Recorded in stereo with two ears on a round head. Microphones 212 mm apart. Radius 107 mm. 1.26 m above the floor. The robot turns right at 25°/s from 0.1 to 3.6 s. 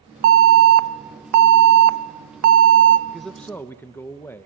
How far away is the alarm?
About 1.0 m.